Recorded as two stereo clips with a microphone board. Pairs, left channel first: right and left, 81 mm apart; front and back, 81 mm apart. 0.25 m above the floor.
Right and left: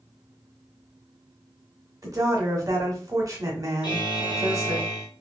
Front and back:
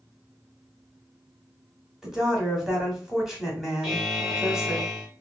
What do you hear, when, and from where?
2.0 s a woman speaking: 100° left, 1.2 m
3.8 s a buzzer: 95° right, 1.1 m